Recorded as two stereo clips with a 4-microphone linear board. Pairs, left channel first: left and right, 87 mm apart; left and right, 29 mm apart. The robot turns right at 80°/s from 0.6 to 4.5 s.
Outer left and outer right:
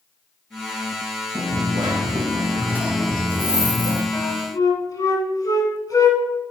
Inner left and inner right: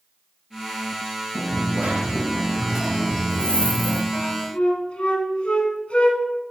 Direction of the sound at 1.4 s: 135° right.